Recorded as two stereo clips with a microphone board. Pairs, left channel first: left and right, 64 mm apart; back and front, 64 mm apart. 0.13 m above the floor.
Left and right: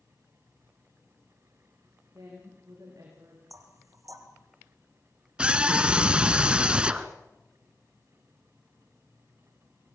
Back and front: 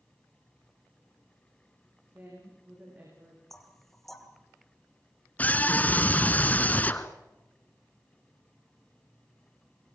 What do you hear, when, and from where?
2.1 s a woman speaking: 60° right, 7.5 m
3.5 s knocking: 90° right, 1.8 m
5.4 s a scream: 145° right, 1.4 m